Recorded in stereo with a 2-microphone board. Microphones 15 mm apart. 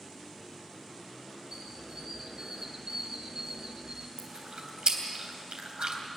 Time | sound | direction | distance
1.5 | a squeak | 40° right (ahead or behind) | 1.3 m
4.2 | chewing | 70° right (ahead or behind) | 3 m